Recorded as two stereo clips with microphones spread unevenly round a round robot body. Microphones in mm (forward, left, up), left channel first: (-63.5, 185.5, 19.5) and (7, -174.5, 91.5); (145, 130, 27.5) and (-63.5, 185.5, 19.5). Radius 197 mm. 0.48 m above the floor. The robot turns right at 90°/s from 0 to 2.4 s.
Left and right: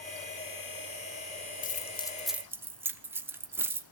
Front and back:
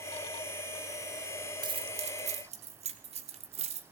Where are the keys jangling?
115° left, 0.6 m; by 3.8 s 175° right, 0.6 m.